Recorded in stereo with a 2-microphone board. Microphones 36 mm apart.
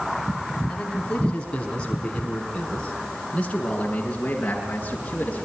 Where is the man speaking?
25° left (ahead or behind), 4.5 m; by 5.5 s 35° left (ahead or behind), 7 m.